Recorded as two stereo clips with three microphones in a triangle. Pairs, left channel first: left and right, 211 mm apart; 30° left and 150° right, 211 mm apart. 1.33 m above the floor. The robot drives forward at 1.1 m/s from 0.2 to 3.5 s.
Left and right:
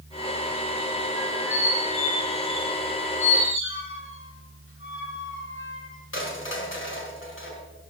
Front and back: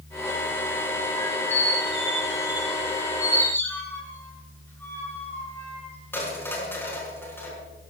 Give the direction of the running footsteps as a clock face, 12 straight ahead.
I don't hear running footsteps.